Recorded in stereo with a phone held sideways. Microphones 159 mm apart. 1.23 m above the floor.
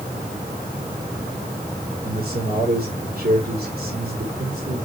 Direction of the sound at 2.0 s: 75° right (ahead or behind).